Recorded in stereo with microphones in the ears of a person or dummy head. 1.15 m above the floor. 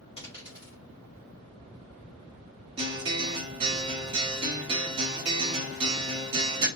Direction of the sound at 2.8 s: 25° right (ahead or behind).